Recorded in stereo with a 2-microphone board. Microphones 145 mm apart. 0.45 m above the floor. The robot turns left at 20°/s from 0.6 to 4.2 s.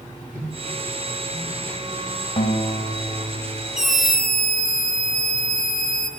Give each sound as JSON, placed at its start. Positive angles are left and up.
{"t": 0.3, "sound": "a microwave", "side_deg": -20, "distance_m": 8.5}
{"t": 2.4, "sound": "a guitar", "side_deg": 40, "distance_m": 2.0}
{"t": 3.8, "sound": "a scream", "side_deg": -65, "distance_m": 5.5}